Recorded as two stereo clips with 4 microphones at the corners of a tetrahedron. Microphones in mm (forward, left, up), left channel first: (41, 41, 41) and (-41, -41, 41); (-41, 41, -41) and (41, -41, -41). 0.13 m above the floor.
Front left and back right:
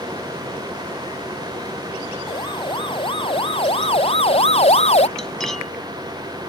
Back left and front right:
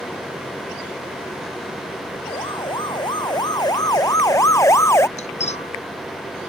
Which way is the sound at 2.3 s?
90° left.